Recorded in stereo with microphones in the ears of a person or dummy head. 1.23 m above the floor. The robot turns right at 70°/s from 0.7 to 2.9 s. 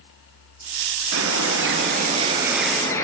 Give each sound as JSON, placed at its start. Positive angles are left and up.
{"t": 1.1, "sound": "a bird", "azimuth_deg": -105, "distance_m": 3.0}